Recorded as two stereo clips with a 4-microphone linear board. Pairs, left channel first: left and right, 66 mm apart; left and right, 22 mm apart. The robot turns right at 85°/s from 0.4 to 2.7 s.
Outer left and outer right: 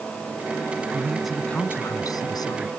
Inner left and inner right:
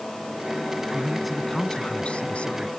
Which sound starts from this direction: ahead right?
A man speaking, at 0.9 s.